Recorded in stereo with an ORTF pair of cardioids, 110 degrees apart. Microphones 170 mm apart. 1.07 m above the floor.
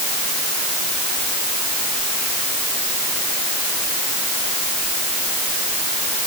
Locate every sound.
Only background noise.